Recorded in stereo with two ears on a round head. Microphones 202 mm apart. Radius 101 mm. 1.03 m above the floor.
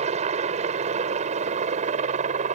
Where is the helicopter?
30° right (ahead or behind).